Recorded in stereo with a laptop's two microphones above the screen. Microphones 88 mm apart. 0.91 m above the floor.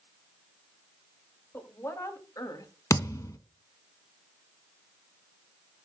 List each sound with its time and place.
1.5 s a woman speaking: 25° left (ahead or behind), 2.0 m; by 2.7 s 50° left (ahead or behind), 1.5 m
2.9 s a thud: 40° left (ahead or behind), 1.0 m